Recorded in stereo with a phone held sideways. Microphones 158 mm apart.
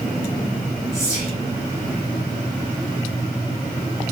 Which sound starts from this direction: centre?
Whispering, at 0.9 s.